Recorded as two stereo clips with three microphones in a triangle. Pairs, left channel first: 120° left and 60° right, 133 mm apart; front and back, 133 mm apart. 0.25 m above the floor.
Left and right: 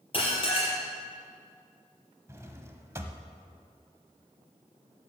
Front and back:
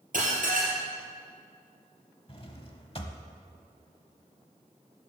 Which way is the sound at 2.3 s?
Straight ahead.